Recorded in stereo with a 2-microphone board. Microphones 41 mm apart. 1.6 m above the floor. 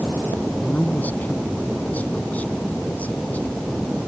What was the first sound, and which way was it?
A man speaking, 45° left (ahead or behind).